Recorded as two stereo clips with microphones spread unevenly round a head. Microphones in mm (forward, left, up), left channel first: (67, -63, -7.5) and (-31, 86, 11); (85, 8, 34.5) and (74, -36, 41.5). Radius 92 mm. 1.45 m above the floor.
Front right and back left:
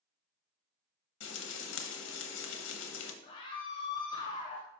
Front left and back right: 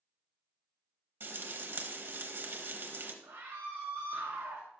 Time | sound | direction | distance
1.2 | frying | 80° right | 0.8 m
3.2 | a scream | 125° right | 0.6 m